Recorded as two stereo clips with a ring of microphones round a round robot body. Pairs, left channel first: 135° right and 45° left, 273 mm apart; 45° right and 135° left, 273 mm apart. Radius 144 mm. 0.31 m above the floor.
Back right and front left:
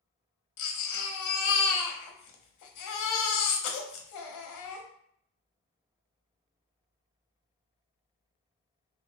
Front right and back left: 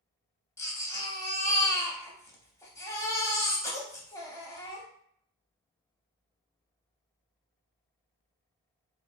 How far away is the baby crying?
About 0.8 m.